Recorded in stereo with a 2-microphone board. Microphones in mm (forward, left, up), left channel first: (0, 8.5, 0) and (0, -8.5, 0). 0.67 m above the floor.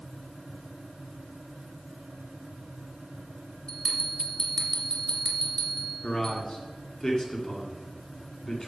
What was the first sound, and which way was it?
A bell, 30° left (ahead or behind).